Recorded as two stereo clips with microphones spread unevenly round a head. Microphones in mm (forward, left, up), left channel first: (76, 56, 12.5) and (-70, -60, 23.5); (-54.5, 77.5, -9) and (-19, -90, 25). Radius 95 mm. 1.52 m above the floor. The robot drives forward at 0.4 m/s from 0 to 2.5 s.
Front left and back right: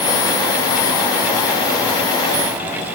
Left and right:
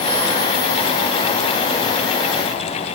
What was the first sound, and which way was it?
Only background noise.